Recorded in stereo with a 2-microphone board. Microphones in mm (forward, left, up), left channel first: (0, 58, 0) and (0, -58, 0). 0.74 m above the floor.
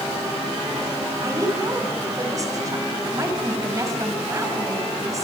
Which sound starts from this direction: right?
A woman speaking, at 1.2 s.